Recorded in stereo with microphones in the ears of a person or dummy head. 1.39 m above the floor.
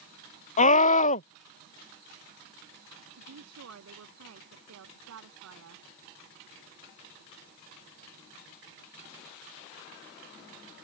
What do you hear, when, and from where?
0.6 s a scream: 35° left (ahead or behind)
3.1 s a woman speaking: 90° right